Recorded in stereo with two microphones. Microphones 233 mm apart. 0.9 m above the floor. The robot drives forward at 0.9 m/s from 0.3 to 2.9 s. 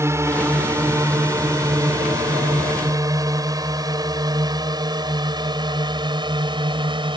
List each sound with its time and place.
0.0 s a drone: 10° right (ahead or behind); by 7.2 s 20° right (ahead or behind)